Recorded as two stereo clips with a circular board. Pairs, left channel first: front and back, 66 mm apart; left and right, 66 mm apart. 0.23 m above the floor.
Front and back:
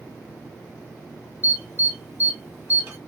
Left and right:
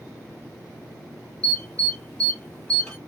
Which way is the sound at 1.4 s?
155° left.